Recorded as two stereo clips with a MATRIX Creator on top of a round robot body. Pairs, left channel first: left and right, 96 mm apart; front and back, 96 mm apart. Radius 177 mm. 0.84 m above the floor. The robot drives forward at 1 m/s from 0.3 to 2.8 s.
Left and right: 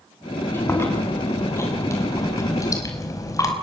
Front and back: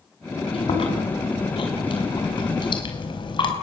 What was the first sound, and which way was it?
Chewing, 25° left.